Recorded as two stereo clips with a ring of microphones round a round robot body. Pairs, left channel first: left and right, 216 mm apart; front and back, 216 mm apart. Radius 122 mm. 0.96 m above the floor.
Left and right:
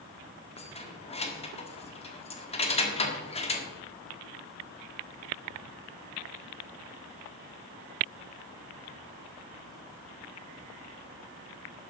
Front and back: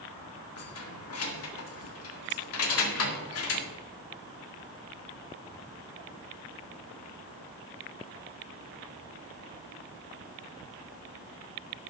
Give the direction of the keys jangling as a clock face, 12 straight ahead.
11 o'clock.